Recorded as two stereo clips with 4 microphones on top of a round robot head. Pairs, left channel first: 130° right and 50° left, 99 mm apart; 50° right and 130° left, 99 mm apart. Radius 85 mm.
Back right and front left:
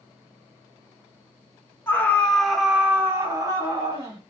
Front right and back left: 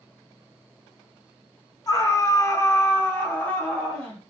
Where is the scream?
75° right, 1.0 m; by 4.2 s 30° left, 1.3 m.